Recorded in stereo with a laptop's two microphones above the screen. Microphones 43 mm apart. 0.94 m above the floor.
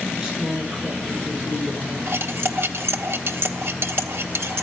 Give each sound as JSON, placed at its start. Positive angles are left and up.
{"t": 0.1, "sound": "a woman speaking", "side_deg": -10, "distance_m": 10.0}
{"t": 2.1, "sound": "cutlery clinking", "side_deg": -65, "distance_m": 1.3}